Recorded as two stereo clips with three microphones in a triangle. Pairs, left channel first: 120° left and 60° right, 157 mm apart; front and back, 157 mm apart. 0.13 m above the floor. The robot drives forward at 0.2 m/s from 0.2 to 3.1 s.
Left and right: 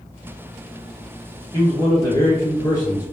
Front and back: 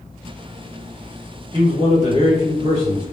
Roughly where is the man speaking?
Behind.